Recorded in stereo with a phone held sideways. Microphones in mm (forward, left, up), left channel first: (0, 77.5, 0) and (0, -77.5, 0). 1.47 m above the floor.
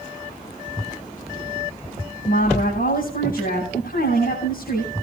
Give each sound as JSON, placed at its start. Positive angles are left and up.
{"t": 2.2, "sound": "a woman speaking", "side_deg": 70, "distance_m": 9.5}